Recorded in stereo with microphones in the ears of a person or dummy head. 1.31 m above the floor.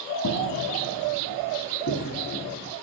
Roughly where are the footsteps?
Left.